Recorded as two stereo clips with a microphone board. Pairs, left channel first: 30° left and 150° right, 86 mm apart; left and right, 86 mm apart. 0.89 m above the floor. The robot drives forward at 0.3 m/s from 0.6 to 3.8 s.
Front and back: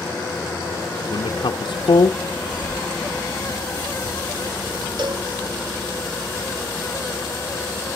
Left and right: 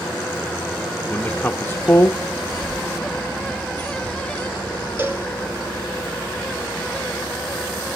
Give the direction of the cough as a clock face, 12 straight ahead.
4 o'clock.